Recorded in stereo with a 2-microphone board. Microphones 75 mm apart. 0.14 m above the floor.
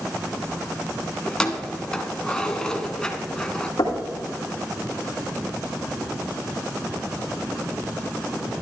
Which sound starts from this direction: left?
Knocking, at 3.8 s.